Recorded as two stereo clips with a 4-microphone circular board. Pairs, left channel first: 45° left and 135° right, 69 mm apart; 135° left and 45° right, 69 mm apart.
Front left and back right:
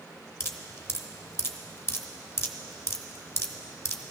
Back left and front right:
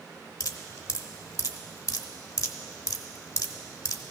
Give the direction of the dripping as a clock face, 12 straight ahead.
9 o'clock.